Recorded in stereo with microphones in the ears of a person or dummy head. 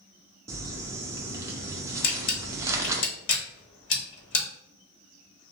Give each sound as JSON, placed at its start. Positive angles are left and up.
{"t": 0.5, "sound": "crumpling", "side_deg": -15, "distance_m": 0.6}
{"t": 2.0, "sound": "a camera shutter", "side_deg": 55, "distance_m": 1.1}